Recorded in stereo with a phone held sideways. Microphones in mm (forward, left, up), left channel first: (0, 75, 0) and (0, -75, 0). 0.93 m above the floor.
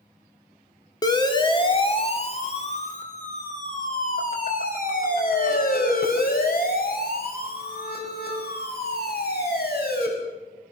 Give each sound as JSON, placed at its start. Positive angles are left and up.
{"t": 1.0, "sound": "a siren", "side_deg": 25, "distance_m": 2.5}